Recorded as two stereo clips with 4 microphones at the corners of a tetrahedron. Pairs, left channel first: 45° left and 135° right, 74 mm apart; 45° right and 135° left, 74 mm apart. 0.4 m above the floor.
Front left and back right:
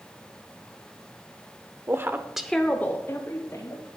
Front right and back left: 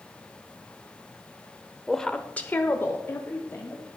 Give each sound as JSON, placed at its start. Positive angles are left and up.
{"t": 1.9, "sound": "a woman speaking", "azimuth_deg": -130, "distance_m": 1.0}